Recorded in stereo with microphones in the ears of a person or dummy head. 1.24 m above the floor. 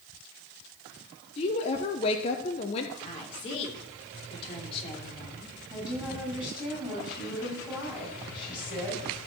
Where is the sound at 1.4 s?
30° left (ahead or behind), 0.9 m.